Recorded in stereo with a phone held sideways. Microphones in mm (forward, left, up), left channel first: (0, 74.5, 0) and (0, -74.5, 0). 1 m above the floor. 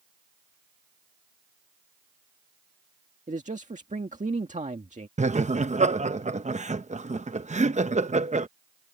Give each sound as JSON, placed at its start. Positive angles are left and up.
{"t": 3.3, "sound": "a man speaking", "side_deg": -55}
{"t": 5.2, "sound": "laughter", "side_deg": -50}